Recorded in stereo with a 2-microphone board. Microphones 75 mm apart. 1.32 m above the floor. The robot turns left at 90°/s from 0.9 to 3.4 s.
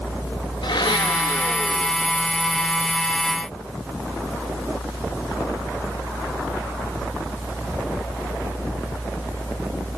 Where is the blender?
95° left, 2 m; by 2.3 s 30° right, 2 m.